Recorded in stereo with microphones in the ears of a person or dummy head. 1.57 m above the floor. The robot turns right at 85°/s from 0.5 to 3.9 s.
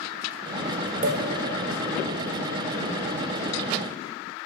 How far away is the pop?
About 1.1 m.